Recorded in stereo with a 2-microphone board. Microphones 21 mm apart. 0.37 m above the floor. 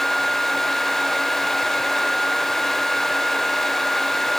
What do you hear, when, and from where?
Only background noise.